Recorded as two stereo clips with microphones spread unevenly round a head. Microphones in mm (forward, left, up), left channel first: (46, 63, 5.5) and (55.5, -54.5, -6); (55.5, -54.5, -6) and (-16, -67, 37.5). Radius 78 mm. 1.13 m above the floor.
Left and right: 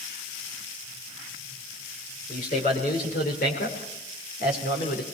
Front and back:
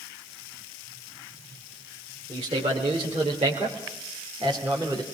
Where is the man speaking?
140° left, 4.5 m; by 5.0 s 125° left, 4 m.